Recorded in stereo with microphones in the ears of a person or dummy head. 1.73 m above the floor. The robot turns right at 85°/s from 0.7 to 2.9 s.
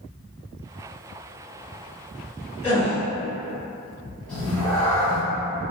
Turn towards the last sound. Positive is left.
turn(degrees=10)  # may be behind; listen again after turning